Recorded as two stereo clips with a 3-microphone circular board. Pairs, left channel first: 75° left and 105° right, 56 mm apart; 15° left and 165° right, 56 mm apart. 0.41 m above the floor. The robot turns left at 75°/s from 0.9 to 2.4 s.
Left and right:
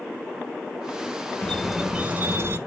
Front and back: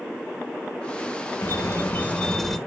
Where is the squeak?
5° left, 0.5 m; by 2.6 s 70° right, 0.5 m.